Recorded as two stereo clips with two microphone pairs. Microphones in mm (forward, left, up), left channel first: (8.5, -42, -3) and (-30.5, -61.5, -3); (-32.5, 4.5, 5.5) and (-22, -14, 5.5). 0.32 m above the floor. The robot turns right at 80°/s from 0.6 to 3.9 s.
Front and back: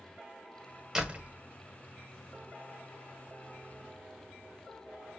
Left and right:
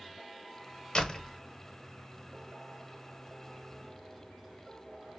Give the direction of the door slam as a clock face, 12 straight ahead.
7 o'clock.